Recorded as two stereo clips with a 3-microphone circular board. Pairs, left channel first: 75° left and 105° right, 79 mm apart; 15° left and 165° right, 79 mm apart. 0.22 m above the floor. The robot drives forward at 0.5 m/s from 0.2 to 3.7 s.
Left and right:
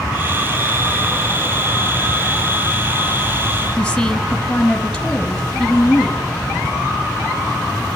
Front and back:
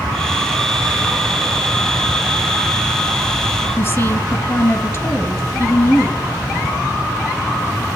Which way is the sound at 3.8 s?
10° left.